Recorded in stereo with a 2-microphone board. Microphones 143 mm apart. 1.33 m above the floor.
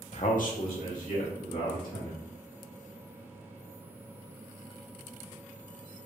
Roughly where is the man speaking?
Left.